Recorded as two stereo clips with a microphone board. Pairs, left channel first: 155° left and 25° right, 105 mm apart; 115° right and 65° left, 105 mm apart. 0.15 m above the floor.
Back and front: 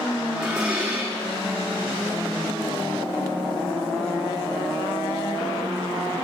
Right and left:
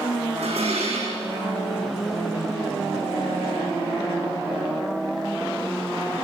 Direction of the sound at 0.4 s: 60° left.